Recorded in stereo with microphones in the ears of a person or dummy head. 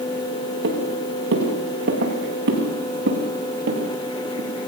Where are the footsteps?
70° right (ahead or behind), 7.5 m; by 4.5 s 50° right (ahead or behind), 7.5 m.